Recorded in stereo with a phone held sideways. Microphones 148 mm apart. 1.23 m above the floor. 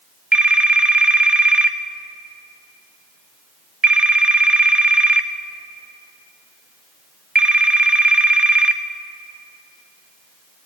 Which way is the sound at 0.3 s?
10° right (ahead or behind).